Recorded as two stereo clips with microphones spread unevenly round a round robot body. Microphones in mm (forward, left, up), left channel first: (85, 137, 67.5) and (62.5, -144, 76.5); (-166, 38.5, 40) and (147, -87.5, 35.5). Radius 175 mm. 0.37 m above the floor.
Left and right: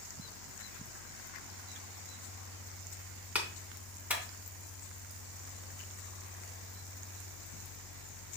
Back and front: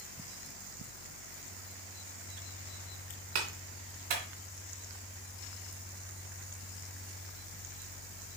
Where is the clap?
10° right, 3 m.